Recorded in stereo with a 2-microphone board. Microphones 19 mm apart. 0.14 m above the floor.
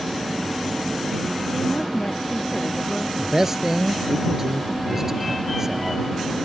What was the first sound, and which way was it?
A woman speaking, 80° left.